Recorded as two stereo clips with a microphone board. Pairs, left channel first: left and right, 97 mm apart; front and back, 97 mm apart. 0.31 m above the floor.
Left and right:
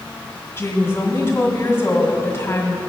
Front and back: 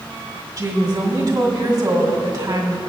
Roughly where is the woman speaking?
Behind left.